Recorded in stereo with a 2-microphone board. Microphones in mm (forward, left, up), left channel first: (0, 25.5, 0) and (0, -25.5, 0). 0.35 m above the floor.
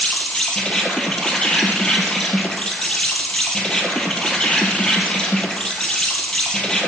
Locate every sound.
0.0 s an insect: 15° left (ahead or behind), 0.8 m